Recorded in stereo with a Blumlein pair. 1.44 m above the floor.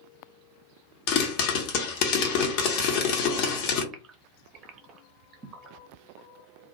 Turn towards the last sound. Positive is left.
turn(degrees=-25)